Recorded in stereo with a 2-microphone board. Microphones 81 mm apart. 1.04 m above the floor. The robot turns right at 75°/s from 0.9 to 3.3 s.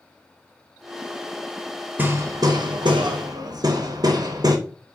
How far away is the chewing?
I don't hear chewing.